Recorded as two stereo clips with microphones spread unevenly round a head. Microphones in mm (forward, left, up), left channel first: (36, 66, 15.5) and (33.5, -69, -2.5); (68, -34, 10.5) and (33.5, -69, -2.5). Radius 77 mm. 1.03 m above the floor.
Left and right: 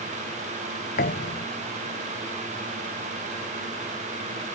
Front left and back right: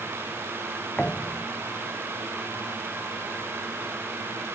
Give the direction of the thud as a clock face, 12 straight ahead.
8 o'clock.